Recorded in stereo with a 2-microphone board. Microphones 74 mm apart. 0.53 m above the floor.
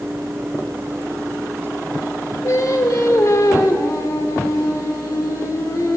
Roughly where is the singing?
Left.